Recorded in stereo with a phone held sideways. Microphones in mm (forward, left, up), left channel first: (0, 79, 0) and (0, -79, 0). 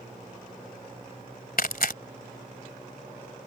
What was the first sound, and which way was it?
Tearing paper, 75° left (ahead or behind).